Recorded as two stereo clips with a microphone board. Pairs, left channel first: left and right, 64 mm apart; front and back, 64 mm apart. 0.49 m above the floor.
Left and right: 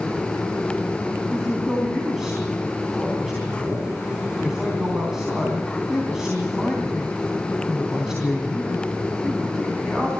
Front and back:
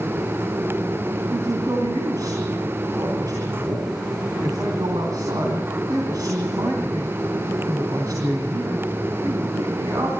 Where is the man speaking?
175° right, 3.5 m.